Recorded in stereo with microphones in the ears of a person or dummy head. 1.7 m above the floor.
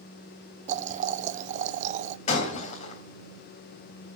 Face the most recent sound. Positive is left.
turn(degrees=45)  # may be behind; listen again after turning